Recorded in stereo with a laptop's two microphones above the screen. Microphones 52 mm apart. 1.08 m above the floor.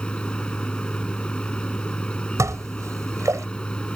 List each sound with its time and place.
0.0 s a machine running: 20° left (ahead or behind)
2.4 s dishes clattering: 80° right